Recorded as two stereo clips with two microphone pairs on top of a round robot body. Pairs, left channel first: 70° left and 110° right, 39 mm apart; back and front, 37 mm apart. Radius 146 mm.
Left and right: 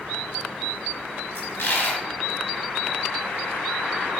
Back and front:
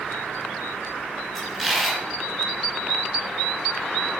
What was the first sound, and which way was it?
A dropped coin, 80° left.